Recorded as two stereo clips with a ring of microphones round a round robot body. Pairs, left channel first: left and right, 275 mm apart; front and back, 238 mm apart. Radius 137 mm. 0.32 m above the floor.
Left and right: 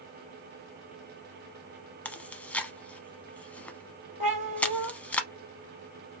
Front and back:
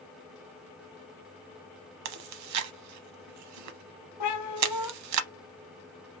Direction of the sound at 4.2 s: 20° right.